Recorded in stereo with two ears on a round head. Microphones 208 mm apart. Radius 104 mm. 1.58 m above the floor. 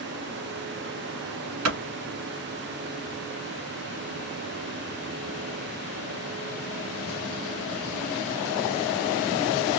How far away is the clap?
About 2 m.